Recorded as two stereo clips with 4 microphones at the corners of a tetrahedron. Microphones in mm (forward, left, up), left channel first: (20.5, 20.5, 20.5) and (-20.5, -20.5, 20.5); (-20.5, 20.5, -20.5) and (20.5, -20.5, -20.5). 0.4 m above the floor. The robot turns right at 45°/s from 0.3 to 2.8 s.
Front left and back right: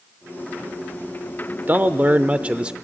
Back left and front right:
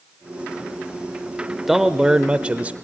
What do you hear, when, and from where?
1.7 s a man speaking: 125° right, 0.8 m; by 2.7 s 80° right, 0.8 m